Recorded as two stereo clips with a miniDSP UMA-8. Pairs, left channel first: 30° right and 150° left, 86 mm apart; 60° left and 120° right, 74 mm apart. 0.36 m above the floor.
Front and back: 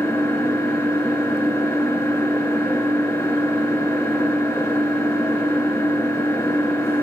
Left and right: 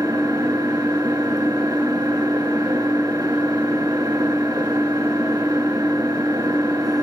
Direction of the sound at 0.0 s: 85° right.